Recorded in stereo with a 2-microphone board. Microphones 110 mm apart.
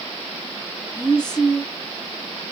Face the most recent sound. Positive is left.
turn(degrees=40)  # may be behind; listen again after turning